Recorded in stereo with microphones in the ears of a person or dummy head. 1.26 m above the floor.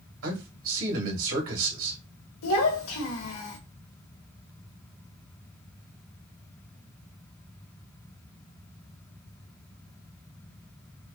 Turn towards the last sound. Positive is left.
turn(degrees=80)